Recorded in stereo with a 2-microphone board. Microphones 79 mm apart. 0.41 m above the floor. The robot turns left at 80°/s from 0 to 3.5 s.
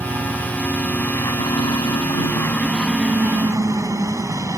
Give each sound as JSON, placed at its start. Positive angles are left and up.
{"t": 0.0, "sound": "a helicopter", "azimuth_deg": -130}